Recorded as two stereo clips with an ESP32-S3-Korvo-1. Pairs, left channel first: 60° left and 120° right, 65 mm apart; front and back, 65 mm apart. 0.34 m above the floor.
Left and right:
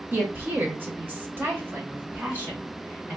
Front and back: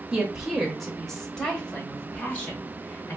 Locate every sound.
0.1 s a woman speaking: 120° right, 1.0 m; by 3.2 s 60° right, 2 m